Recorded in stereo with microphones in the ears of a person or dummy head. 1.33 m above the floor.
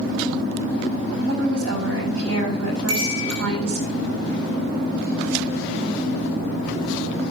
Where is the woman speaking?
85° right, 7.5 m.